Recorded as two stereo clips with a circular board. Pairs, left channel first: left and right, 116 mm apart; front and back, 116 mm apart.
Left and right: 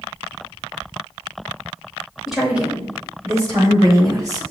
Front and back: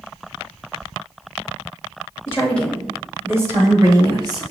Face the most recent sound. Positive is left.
turn(degrees=-140)